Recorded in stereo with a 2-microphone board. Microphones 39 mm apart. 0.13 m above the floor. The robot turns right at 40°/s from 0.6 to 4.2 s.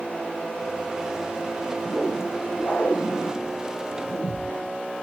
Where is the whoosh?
5° left, 2.5 m; by 4.5 s 100° left, 2.5 m.